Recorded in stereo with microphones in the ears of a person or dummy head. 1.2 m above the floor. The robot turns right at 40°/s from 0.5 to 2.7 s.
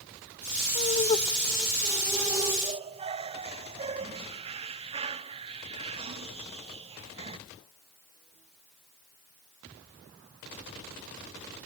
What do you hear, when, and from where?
0.8 s laughter: 45° left (ahead or behind), 0.6 m; by 7.4 s 30° right (ahead or behind), 0.6 m